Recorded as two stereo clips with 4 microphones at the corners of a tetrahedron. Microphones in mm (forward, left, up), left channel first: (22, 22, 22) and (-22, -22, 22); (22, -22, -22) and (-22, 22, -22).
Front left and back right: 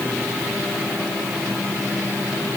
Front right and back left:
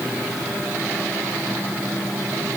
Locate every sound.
Only background noise.